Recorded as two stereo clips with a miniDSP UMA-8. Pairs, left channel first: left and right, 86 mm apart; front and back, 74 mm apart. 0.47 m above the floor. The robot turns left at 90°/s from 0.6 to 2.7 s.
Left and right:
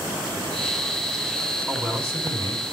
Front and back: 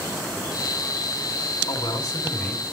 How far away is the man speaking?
About 4.5 m.